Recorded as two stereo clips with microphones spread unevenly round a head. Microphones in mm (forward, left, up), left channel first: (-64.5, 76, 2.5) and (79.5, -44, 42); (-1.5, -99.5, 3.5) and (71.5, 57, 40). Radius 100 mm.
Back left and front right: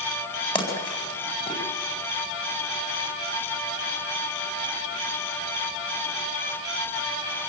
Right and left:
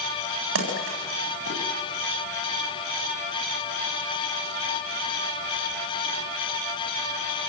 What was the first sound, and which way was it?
A splash, 75° left.